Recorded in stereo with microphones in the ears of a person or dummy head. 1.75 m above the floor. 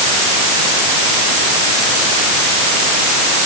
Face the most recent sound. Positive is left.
No sound to turn to.